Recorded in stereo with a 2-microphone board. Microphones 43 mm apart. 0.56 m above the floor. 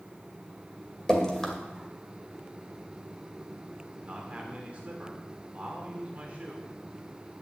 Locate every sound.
1.1 s dripping: 15° left (ahead or behind), 2 m
4.0 s a man speaking: 30° right (ahead or behind), 1.9 m